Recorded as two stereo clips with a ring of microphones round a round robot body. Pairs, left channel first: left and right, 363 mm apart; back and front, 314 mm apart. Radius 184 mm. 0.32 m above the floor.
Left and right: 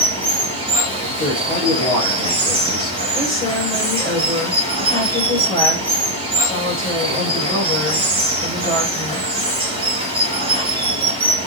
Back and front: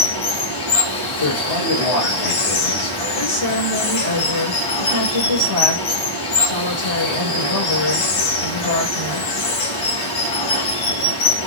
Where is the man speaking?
170° left, 7.5 m.